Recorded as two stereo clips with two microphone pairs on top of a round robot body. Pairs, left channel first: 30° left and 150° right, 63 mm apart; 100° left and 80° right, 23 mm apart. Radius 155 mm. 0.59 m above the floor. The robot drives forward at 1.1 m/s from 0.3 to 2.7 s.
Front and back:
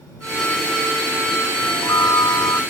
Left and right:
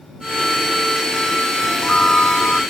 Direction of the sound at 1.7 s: 55° left.